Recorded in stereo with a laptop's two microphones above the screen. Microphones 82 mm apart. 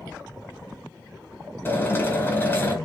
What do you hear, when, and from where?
1.6 s a drill: 30° left (ahead or behind), 4 m